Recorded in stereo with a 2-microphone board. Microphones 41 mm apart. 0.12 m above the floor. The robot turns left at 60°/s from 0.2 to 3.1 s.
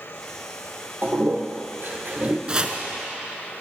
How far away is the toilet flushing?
About 1.3 m.